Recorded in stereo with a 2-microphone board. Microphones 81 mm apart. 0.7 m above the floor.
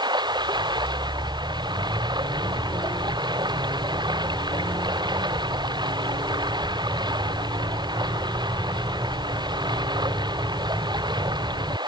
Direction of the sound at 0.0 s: 65° right (ahead or behind).